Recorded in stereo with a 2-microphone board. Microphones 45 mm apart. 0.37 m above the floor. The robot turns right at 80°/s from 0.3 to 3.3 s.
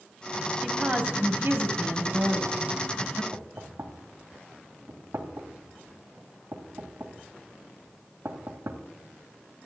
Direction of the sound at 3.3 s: 60° right (ahead or behind).